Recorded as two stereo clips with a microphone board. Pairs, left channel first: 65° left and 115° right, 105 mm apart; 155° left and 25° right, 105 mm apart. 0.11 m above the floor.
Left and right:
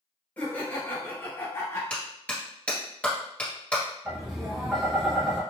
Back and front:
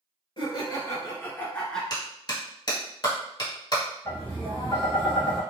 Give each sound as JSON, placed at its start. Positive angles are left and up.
{"t": 0.4, "sound": "laughter", "azimuth_deg": 135, "distance_m": 1.7}
{"t": 1.9, "sound": "a clap", "azimuth_deg": 140, "distance_m": 1.8}
{"t": 4.0, "sound": "tapping", "azimuth_deg": 165, "distance_m": 1.9}